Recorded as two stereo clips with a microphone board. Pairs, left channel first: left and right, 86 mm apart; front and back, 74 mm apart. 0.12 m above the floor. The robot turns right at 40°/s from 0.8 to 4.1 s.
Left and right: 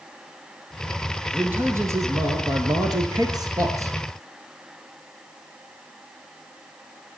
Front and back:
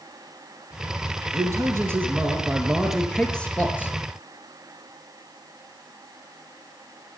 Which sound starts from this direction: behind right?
A man speaking, at 1.3 s.